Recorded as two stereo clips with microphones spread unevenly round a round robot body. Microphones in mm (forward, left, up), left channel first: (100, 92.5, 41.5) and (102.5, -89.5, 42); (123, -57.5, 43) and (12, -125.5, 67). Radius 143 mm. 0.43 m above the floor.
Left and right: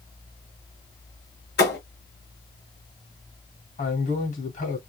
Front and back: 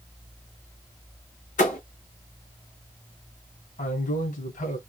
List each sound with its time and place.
1.6 s a thud: 60° left, 2 m
3.8 s a man speaking: 45° left, 2.5 m